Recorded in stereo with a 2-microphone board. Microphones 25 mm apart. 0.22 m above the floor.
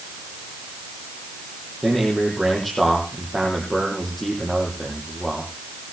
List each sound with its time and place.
1.8 s a man speaking: 5° left (ahead or behind), 7.5 m